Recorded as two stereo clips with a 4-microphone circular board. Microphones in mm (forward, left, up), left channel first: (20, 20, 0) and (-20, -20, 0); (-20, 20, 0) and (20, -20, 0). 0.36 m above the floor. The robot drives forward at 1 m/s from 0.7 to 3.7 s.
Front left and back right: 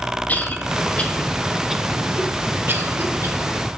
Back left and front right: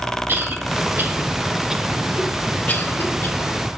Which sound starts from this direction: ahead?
A cough, at 0.3 s.